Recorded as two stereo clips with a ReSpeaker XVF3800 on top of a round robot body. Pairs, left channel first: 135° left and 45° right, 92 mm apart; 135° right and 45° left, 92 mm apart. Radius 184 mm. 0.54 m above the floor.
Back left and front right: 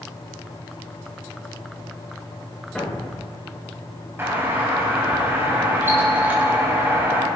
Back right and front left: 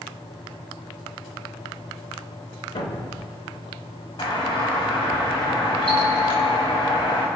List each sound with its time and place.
2.8 s a thud: 145° right, 3 m
4.2 s a doorbell: 110° right, 4 m